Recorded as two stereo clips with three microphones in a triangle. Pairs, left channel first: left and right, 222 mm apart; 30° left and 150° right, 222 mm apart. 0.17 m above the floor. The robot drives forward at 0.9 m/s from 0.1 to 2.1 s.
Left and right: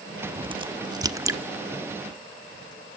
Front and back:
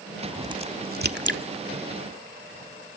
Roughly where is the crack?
Ahead right.